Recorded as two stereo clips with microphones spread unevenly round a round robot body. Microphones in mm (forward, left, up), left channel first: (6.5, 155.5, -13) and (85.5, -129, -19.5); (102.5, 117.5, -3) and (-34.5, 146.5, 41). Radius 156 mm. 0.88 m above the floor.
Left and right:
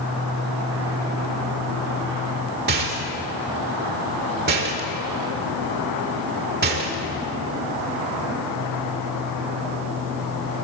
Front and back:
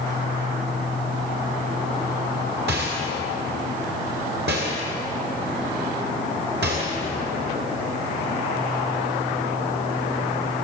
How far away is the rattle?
About 1.8 m.